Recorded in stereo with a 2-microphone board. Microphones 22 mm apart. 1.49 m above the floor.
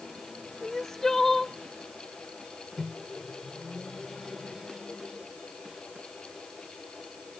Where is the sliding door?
I don't hear a sliding door.